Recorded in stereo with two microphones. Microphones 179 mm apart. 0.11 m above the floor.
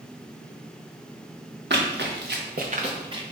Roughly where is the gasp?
No gasp in this recording.